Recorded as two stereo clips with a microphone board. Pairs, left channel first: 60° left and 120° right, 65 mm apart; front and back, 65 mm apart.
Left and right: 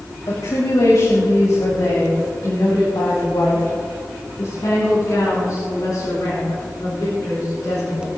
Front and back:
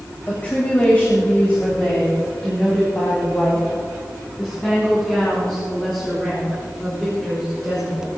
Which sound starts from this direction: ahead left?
A woman speaking, at 0.3 s.